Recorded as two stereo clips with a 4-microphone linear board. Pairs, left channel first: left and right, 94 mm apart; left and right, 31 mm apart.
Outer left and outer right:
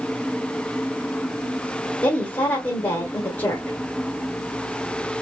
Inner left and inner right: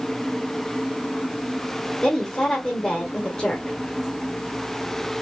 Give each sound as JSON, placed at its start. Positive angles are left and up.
{"t": 2.0, "sound": "a woman speaking", "side_deg": 20, "distance_m": 1.5}